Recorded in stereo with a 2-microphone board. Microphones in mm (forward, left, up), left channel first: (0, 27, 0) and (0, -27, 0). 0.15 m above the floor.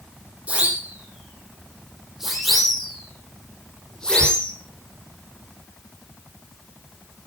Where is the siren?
25° right (ahead or behind), 8 m; by 4.5 s 20° left (ahead or behind), 8.5 m.